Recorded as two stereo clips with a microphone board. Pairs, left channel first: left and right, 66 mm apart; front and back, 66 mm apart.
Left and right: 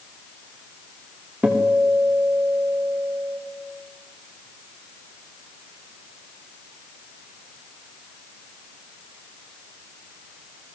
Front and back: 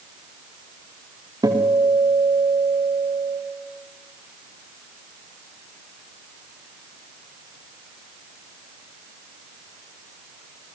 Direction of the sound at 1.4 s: 160° right.